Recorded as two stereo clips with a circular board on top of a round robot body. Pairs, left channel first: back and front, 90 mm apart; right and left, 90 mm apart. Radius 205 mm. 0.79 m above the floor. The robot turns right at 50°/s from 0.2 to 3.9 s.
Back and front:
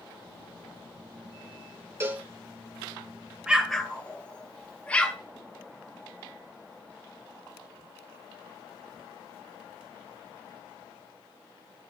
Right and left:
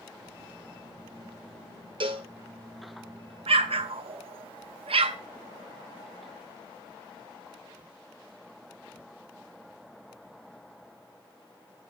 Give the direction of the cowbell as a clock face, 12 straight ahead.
10 o'clock.